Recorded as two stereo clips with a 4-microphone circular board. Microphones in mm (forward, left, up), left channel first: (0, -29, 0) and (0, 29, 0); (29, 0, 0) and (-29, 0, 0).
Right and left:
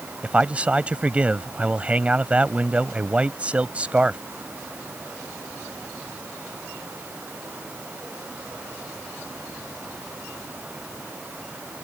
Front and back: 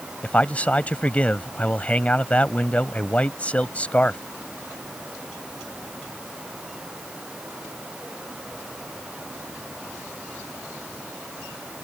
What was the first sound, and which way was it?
A man speaking, 45° left.